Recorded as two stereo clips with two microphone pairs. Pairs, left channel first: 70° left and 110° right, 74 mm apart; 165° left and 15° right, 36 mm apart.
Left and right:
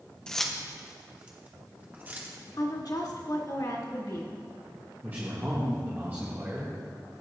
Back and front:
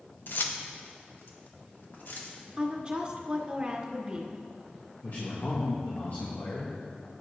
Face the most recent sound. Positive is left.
turn(degrees=-165)